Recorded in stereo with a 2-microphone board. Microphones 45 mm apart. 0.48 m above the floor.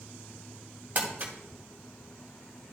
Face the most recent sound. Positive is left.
turn(degrees=-40)  # may be behind; listen again after turning